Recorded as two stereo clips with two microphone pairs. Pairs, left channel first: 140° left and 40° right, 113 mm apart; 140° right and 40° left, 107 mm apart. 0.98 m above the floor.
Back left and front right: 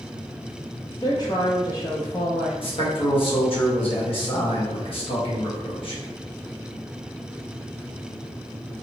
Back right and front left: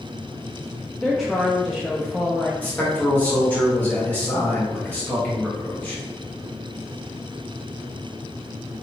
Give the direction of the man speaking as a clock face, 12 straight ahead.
7 o'clock.